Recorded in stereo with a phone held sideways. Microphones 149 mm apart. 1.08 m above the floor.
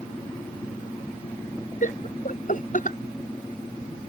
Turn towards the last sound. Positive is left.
turn(degrees=55)  # may be behind; listen again after turning